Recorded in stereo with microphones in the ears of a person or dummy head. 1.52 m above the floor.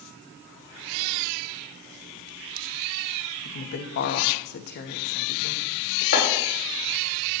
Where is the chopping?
60° left (ahead or behind), 6 m.